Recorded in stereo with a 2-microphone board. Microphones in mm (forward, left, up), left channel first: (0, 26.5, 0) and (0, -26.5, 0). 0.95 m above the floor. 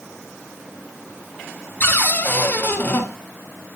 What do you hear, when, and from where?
1.8 s a cupboard door: 35° left (ahead or behind), 1.6 m